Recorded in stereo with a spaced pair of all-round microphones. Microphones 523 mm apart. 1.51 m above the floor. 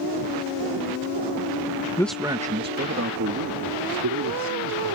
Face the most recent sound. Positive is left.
turn(degrees=-45)  # may be behind; listen again after turning